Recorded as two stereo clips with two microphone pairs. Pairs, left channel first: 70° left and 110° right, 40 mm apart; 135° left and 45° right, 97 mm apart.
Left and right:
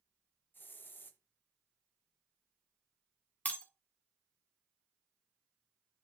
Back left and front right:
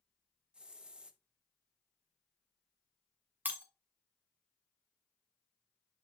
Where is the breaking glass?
25° left, 1.6 m.